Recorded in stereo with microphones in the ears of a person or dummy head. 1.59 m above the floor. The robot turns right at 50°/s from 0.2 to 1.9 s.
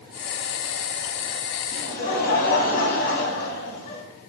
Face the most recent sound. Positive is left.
turn(degrees=60)  # may be behind; listen again after turning